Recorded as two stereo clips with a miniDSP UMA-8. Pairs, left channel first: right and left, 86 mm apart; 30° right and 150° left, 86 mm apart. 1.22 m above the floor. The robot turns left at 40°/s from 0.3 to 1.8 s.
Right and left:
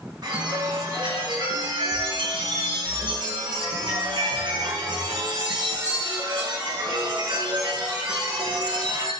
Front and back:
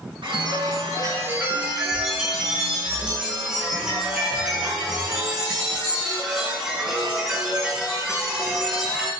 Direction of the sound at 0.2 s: 130° left.